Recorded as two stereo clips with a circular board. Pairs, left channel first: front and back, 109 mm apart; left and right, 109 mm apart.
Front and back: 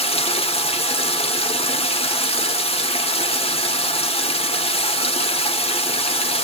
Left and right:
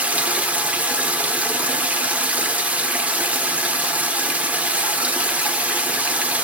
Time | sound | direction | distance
0.0 | running water | 15° right | 1.1 m